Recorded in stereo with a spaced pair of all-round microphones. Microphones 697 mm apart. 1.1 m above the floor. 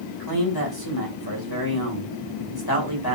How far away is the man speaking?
About 1.8 m.